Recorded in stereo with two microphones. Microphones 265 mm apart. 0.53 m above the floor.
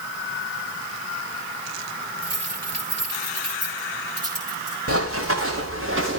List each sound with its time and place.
2.2 s keys jangling: 65° right (ahead or behind), 8 m; by 4.8 s 60° right (ahead or behind), 7 m
4.9 s running footsteps: 55° right (ahead or behind), 4.5 m; by 6.2 s 45° right (ahead or behind), 4.5 m